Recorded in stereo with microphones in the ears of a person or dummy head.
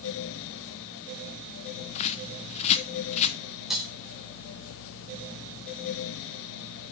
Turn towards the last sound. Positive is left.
turn(degrees=-5)  # may be behind; listen again after turning